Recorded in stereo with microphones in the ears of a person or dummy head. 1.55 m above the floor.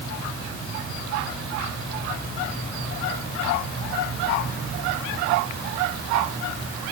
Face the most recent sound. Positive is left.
No sound to turn to.